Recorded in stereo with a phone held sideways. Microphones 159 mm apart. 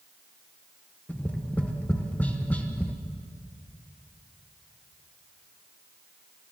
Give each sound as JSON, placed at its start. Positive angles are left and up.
{"t": 1.1, "sound": "tapping", "side_deg": 10, "distance_m": 1.4}